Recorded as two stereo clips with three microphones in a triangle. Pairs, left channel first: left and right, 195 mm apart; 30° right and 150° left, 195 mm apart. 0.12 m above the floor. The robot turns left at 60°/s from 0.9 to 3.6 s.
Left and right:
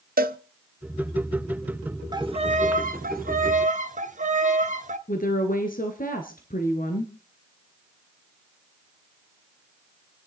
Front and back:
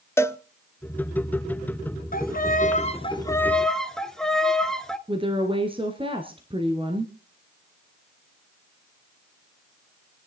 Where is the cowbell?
105° right, 0.6 m.